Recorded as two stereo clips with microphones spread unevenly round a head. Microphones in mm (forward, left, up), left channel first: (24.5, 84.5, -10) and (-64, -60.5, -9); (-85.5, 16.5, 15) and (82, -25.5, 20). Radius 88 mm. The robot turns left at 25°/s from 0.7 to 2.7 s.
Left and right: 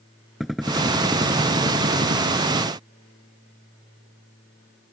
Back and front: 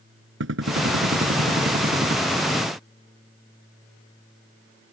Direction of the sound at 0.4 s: 30° right.